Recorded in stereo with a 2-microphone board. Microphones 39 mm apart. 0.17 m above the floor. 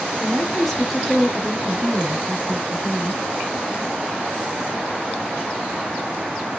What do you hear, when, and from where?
0.2 s a woman speaking: 5° left (ahead or behind), 1.3 m; by 3.2 s 35° right (ahead or behind), 1.3 m